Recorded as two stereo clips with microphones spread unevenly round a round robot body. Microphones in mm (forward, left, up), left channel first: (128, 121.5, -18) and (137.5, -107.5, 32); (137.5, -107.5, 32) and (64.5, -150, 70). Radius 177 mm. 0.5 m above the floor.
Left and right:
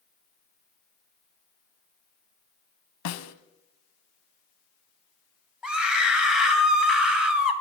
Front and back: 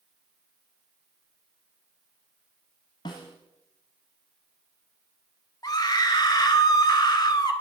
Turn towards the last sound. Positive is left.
turn(degrees=5)